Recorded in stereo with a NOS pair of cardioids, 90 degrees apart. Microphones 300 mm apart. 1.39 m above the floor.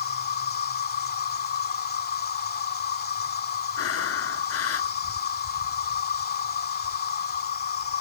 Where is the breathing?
50° left.